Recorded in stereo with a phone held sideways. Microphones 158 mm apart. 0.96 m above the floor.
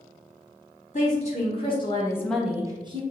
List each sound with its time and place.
0.9 s a woman speaking: 50° left (ahead or behind), 1.7 m; by 3.0 s 35° right (ahead or behind), 0.9 m